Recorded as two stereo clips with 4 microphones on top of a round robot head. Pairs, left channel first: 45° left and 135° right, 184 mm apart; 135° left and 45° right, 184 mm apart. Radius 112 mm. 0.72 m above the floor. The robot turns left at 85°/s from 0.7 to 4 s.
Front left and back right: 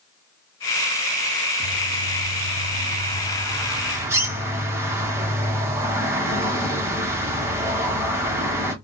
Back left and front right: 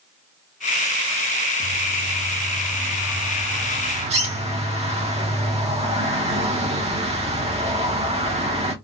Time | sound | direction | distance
1.6 | a bird | 135° left | 1.2 m